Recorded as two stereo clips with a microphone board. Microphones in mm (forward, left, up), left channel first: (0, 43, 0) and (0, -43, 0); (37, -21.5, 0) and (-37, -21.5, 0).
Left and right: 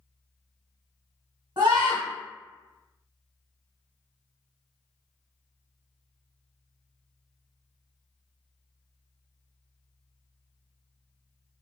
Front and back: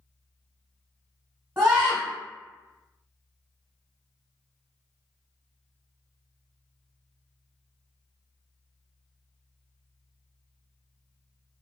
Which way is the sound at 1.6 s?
125° right.